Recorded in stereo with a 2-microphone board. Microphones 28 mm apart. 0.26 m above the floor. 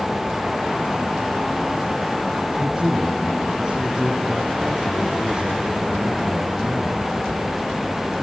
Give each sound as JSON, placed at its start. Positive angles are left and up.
{"t": 2.6, "sound": "a man speaking", "side_deg": -30, "distance_m": 3.5}